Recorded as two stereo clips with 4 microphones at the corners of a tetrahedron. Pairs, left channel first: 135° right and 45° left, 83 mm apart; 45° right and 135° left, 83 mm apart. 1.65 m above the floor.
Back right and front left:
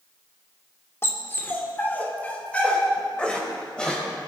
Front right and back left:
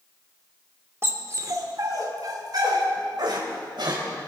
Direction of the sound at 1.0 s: Straight behind.